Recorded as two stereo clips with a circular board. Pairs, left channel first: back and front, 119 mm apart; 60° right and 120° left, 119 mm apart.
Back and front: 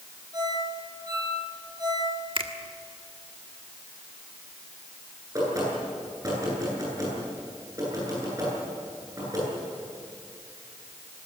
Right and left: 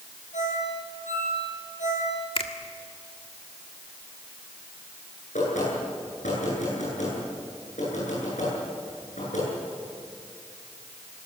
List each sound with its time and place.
0.3 s a ringtone: 60° right, 10 m
2.4 s a finger snap: 35° right, 1.5 m
5.3 s knocking: 65° right, 10 m